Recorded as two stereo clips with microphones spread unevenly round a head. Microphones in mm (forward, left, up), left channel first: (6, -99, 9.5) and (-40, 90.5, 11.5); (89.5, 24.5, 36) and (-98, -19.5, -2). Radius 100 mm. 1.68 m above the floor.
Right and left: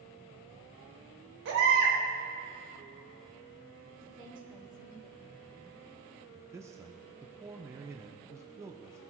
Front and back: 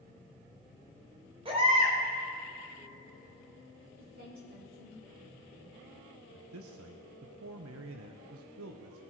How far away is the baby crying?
About 3.5 m.